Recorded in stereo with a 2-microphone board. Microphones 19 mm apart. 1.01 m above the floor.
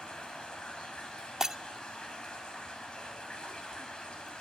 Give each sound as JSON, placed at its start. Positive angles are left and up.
{"t": 0.0, "sound": "running water", "side_deg": 60, "distance_m": 6.0}
{"t": 1.4, "sound": "breaking glass", "side_deg": -25, "distance_m": 0.6}